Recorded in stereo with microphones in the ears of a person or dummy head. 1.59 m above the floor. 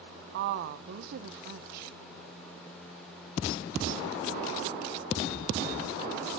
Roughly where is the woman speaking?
Right.